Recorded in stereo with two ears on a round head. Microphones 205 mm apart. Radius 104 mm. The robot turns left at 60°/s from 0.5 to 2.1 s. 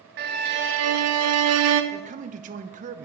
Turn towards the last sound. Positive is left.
turn(degrees=-35)  # may be behind; listen again after turning